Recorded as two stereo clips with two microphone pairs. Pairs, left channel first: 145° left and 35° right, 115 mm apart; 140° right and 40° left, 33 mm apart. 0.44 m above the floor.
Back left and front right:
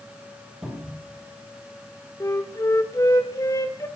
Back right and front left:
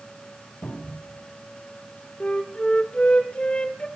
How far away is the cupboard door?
About 8.5 m.